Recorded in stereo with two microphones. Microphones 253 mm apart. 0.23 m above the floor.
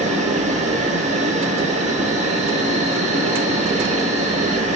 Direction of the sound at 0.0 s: 25° right (ahead or behind).